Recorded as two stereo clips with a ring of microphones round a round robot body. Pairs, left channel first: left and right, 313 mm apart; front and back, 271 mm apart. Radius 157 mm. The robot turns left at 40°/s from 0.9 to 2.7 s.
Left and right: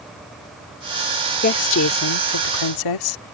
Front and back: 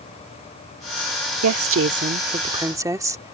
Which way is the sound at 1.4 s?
150° left.